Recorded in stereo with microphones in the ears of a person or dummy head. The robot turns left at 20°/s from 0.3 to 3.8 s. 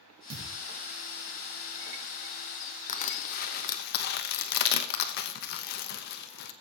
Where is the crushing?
40° left (ahead or behind), 0.8 m; by 6.5 s 55° left (ahead or behind), 0.8 m.